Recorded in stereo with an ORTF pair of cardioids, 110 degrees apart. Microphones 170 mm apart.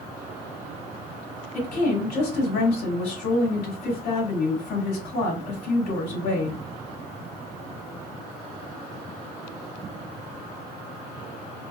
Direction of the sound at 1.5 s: 60° left.